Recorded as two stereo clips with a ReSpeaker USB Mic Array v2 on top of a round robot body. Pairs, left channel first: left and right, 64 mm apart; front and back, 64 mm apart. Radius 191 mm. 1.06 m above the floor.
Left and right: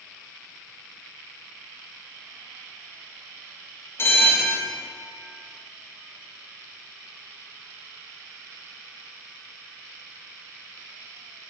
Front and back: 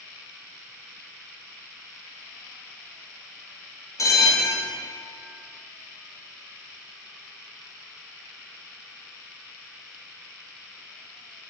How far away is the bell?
About 0.7 m.